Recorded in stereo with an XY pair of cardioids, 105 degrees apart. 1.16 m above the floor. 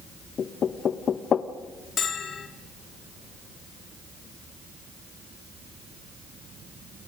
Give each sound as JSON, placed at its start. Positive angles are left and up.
{"t": 0.4, "sound": "knocking", "azimuth_deg": 50, "distance_m": 0.9}
{"t": 2.0, "sound": "a bell", "azimuth_deg": 50, "distance_m": 2.5}